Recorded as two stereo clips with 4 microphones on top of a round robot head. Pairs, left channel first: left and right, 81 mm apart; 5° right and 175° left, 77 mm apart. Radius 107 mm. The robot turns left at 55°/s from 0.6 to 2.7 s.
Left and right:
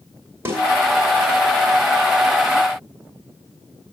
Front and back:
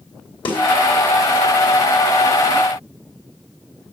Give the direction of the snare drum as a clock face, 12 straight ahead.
1 o'clock.